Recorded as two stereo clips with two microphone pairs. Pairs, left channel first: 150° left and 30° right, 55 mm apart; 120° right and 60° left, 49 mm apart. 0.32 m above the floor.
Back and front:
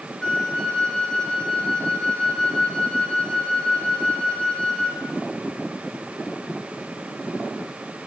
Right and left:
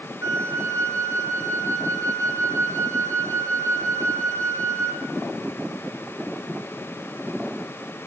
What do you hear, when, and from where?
0.2 s a flute: 75° left, 3.5 m